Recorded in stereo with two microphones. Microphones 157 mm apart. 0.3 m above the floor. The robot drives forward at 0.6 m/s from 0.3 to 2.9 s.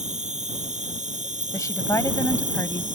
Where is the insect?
50° right (ahead or behind).